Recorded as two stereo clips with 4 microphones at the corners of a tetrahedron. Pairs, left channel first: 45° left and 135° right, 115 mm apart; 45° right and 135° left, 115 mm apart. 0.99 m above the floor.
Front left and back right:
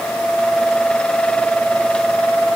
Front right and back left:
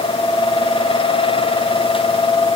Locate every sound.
Only background noise.